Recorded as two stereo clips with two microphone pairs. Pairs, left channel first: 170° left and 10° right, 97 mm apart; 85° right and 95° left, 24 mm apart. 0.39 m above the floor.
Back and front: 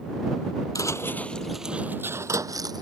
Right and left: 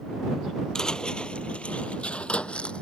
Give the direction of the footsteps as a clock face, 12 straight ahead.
5 o'clock.